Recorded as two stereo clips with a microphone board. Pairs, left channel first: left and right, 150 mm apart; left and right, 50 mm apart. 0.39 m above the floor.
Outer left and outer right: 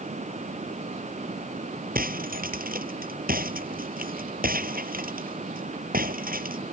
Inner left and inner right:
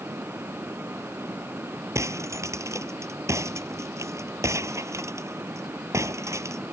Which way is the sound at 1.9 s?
75° right (ahead or behind).